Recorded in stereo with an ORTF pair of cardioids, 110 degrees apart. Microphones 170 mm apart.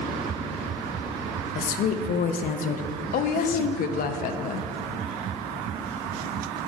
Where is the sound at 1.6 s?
55° left, 0.7 m.